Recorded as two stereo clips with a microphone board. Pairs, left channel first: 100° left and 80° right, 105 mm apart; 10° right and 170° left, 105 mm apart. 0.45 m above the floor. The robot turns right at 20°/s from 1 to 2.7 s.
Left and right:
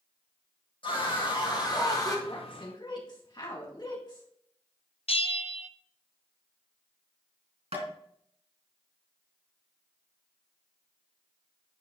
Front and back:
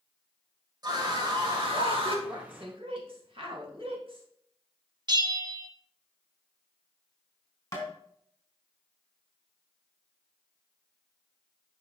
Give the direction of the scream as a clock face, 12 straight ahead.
8 o'clock.